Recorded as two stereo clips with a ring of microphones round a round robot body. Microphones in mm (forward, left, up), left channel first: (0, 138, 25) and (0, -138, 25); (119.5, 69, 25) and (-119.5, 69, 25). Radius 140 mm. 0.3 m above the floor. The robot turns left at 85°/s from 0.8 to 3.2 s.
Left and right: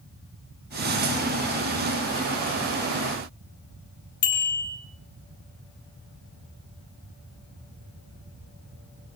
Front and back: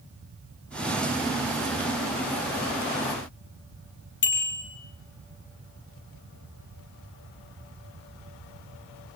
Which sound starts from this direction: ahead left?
A bicycle bell, at 4.2 s.